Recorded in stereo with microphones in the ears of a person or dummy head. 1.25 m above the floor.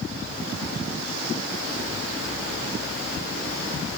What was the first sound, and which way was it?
Only background noise.